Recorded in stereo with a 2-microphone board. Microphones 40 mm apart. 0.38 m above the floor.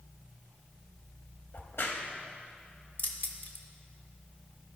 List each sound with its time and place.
1.5 s a crack: 70° left (ahead or behind), 0.8 m
3.0 s keys jangling: 50° left (ahead or behind), 0.8 m